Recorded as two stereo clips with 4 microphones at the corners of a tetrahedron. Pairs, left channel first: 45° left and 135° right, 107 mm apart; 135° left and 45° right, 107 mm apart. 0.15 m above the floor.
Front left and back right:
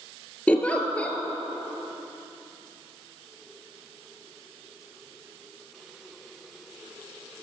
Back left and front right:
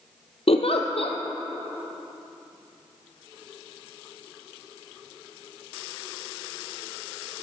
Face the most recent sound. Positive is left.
turn(degrees=120)